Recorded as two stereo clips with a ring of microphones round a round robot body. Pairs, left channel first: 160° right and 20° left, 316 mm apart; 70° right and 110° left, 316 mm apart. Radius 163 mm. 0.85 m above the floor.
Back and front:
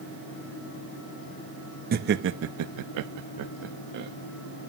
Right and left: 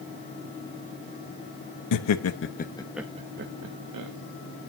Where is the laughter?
40° right, 1.0 m; by 4.1 s 80° left, 1.1 m.